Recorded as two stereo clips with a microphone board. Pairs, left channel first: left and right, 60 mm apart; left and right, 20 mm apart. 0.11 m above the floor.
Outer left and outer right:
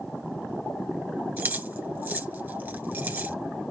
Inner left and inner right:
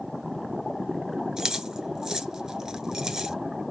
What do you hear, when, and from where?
1.4 s keys jangling: 35° right (ahead or behind), 1.1 m